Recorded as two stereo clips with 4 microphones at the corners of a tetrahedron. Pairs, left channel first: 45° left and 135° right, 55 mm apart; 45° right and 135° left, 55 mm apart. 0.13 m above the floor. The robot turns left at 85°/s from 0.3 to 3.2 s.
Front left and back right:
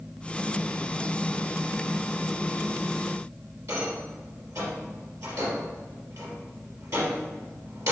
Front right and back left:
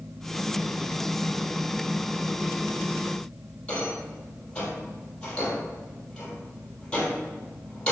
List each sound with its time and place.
3.7 s a rattle: 115° right, 3 m